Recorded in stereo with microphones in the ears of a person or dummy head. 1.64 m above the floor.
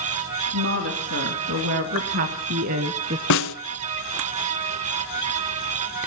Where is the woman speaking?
60° right (ahead or behind), 2.5 m; by 3.2 s 35° right (ahead or behind), 0.8 m.